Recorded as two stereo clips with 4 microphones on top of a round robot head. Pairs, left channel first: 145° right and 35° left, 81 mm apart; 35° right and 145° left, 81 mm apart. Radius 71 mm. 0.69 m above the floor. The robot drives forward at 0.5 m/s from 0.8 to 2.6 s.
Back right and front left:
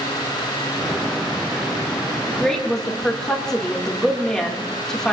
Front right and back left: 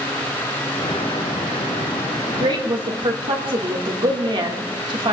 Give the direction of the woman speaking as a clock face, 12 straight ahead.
8 o'clock.